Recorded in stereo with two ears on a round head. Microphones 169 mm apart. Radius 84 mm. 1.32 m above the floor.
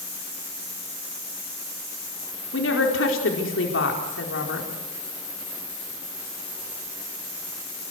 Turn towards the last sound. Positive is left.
turn(degrees=70)  # may be behind; listen again after turning